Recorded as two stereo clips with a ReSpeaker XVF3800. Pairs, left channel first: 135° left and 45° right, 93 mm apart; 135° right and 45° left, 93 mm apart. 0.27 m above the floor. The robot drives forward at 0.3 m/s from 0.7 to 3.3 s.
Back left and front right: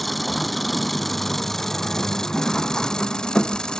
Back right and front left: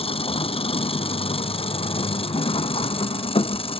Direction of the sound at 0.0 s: 135° right.